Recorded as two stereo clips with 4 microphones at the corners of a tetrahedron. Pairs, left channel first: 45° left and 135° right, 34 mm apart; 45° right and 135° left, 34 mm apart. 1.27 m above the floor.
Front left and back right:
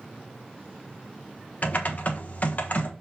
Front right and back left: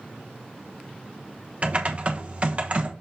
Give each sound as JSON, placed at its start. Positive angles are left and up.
{"t": 1.6, "sound": "typing on a keyboard", "azimuth_deg": 80, "distance_m": 1.2}